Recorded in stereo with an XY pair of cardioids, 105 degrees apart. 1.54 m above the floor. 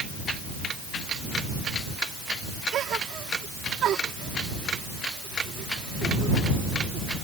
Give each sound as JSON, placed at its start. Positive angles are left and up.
{"t": 2.7, "sound": "a gasp", "azimuth_deg": -70}